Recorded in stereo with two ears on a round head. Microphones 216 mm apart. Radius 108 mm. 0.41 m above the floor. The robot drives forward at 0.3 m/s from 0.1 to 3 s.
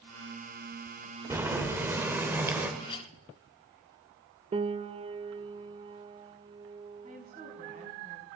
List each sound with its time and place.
1.3 s boiling: 10° right (ahead or behind), 1.4 m
2.8 s a clink: 20° left (ahead or behind), 0.9 m
4.5 s a piano: 25° right (ahead or behind), 0.5 m
7.0 s a woman speaking: 30° right (ahead or behind), 3 m